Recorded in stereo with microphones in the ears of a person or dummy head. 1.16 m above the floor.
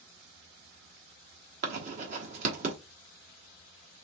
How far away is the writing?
About 1.0 m.